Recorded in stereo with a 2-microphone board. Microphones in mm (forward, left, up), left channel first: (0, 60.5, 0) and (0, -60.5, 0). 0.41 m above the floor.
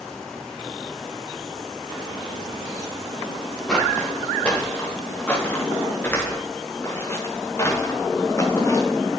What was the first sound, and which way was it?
Footsteps, 5° left (ahead or behind).